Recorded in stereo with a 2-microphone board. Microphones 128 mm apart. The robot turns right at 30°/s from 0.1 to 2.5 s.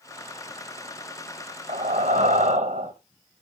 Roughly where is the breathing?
Right.